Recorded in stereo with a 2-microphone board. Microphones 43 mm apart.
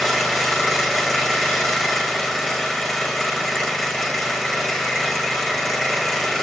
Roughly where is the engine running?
Centre.